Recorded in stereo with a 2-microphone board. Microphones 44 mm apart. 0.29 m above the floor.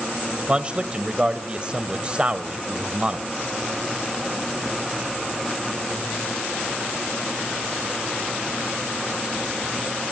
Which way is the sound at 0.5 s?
25° right (ahead or behind).